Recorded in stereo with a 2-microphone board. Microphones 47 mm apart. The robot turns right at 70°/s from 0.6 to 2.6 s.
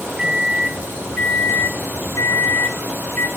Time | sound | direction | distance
0.2 | a microwave | 10° right | 0.5 m